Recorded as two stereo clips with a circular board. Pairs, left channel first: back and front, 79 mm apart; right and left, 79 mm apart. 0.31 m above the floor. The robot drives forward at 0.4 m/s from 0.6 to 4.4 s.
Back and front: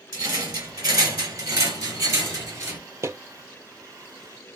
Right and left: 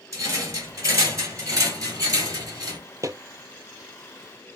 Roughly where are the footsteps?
Ahead left.